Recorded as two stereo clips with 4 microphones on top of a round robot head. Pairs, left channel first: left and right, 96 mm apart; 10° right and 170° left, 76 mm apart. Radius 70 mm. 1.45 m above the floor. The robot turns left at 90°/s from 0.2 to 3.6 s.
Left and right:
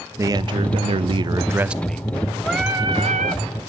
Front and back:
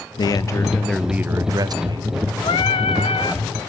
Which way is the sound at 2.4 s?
5° left.